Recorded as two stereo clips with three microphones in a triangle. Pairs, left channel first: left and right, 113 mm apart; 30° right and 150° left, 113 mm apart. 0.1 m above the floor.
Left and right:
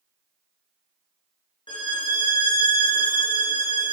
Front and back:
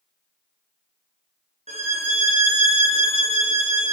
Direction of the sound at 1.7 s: 135° left.